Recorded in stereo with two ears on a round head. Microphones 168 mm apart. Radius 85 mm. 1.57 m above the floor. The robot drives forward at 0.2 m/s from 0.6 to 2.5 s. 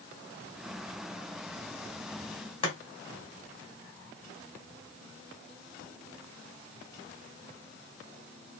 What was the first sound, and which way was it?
Chopping, 30° left (ahead or behind).